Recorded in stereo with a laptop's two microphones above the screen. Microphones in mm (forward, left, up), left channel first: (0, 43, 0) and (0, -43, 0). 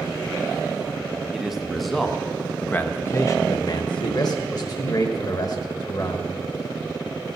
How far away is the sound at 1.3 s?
About 1.3 m.